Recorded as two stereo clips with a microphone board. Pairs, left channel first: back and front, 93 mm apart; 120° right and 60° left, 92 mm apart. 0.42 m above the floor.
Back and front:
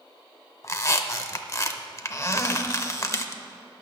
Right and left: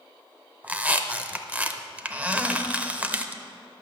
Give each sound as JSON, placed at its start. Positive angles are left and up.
{"t": 0.6, "sound": "a squeak", "azimuth_deg": 130, "distance_m": 0.6}